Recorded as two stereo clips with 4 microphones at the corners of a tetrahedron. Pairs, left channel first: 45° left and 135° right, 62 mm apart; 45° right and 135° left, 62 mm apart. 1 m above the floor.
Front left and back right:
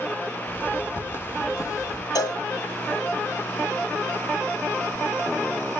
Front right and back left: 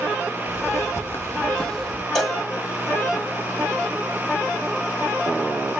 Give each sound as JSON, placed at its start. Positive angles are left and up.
{"t": 0.5, "sound": "footsteps", "azimuth_deg": -10, "distance_m": 2.0}
{"t": 2.1, "sound": "a cowbell", "azimuth_deg": 40, "distance_m": 1.3}